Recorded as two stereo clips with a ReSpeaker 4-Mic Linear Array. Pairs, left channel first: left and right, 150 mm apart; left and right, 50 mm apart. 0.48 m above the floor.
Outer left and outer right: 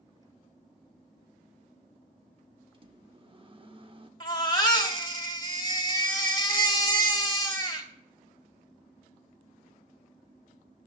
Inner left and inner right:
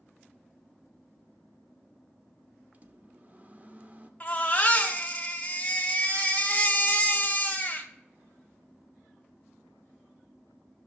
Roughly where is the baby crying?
Left.